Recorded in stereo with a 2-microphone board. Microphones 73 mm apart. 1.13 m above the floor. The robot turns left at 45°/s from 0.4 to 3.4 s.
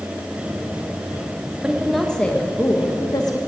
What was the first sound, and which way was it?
A woman speaking, 165° right.